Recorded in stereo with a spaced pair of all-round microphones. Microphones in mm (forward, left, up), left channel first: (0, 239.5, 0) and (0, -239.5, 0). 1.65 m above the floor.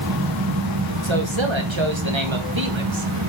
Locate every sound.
0.0 s a fan: 50° right (ahead or behind), 1.5 m
1.0 s a man speaking: 70° right (ahead or behind), 1.4 m